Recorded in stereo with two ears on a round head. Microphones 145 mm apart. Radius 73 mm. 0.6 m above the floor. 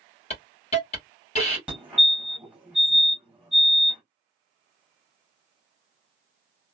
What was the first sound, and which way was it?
A hiss, 40° left (ahead or behind).